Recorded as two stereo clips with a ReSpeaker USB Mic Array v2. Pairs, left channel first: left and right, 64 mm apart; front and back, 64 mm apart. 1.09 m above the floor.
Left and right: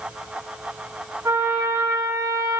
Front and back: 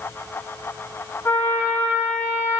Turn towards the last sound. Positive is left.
turn(degrees=-50)